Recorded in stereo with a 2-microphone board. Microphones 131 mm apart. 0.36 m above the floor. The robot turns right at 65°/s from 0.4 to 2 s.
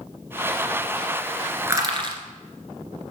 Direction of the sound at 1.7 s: 20° right (ahead or behind).